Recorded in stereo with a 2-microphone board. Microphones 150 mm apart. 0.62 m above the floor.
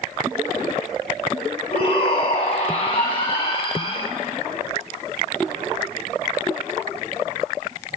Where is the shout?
40° left (ahead or behind), 4.5 m.